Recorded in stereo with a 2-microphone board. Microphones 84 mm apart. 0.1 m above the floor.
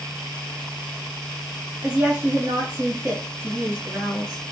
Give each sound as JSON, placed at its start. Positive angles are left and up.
{"t": 1.8, "sound": "a woman speaking", "side_deg": -15, "distance_m": 1.3}